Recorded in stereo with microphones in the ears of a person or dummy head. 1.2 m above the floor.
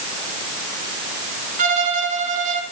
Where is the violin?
40° right (ahead or behind), 2 m.